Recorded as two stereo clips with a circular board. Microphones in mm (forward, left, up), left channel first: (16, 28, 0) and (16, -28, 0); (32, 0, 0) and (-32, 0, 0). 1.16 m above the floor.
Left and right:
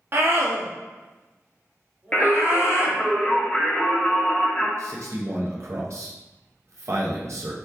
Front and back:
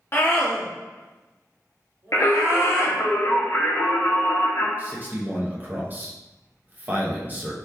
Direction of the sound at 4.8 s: 115° right.